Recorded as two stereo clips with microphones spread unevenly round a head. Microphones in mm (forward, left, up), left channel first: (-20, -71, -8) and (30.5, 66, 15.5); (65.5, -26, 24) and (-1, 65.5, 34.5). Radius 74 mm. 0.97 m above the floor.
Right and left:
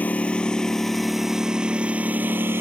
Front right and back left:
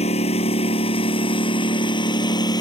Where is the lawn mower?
30° right; by 2.6 s straight ahead.